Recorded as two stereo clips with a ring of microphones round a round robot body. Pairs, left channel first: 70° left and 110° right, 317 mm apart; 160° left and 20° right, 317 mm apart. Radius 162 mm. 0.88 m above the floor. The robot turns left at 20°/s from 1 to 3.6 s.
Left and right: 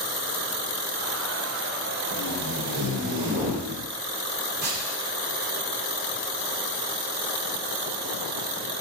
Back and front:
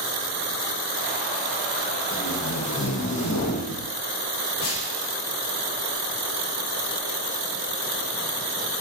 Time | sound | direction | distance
2.1 | tape being pulled | 145° right | 2.5 m